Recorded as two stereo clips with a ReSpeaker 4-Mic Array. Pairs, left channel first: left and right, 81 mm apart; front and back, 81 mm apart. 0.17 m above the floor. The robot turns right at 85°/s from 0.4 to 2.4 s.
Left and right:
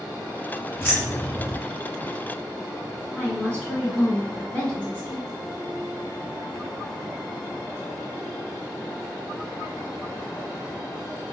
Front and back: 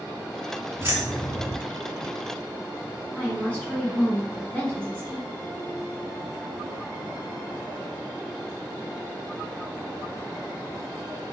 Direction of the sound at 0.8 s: 135° left.